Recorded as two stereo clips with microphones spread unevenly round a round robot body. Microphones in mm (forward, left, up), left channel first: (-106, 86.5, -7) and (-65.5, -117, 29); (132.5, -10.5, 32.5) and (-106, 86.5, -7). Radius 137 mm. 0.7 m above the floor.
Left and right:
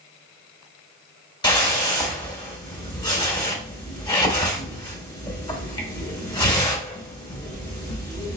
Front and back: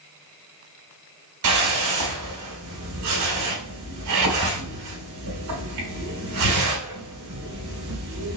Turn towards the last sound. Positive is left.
turn(degrees=170)